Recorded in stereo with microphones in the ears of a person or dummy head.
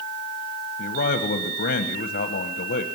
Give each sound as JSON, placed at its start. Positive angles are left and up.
{"t": 0.8, "sound": "a man speaking", "side_deg": 50, "distance_m": 1.1}